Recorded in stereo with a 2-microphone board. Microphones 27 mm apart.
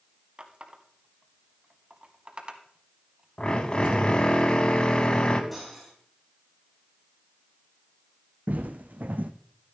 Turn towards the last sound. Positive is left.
turn(degrees=-80)